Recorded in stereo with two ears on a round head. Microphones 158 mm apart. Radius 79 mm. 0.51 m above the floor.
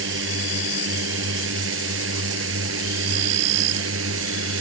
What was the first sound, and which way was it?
A drone, 75° right (ahead or behind).